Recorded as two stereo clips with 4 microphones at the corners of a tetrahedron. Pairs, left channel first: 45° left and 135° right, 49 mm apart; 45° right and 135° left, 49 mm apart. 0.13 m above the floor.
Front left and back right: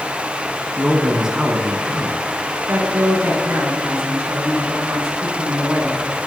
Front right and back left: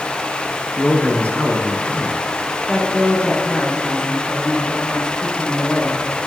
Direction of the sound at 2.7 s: 115° right.